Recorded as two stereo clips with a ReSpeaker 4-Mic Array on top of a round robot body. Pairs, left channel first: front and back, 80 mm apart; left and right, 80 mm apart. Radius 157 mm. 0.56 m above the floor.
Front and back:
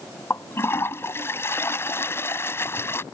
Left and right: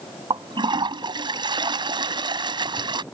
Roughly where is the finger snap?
I don't hear a finger snap.